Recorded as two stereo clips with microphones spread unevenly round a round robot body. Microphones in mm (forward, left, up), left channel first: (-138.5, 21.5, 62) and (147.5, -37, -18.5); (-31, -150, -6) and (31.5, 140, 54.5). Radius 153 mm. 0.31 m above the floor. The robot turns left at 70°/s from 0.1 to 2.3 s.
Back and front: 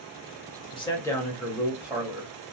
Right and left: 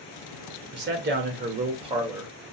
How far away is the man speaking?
About 1.0 m.